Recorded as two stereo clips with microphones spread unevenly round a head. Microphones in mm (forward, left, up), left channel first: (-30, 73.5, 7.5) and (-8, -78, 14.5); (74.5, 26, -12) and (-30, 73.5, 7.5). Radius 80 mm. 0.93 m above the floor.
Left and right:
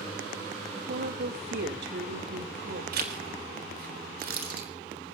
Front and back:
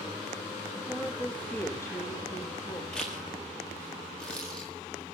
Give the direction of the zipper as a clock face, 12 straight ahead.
4 o'clock.